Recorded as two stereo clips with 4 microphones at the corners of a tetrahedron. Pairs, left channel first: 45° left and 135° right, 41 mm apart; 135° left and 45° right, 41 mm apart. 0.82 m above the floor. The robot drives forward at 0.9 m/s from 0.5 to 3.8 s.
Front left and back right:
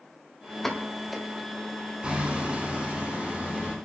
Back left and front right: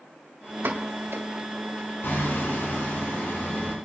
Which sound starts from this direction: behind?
Hammering, at 2.0 s.